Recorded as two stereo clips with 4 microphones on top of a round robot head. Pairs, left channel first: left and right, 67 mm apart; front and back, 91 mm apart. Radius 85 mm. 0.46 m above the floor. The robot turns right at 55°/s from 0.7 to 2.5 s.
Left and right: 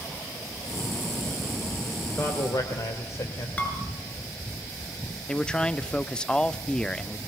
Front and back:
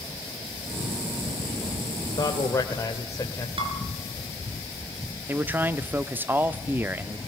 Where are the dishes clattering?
155° left, 5 m.